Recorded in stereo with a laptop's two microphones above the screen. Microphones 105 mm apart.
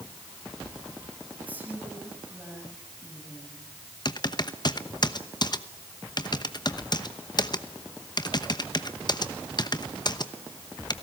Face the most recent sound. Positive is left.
turn(degrees=45)  # may be behind; listen again after turning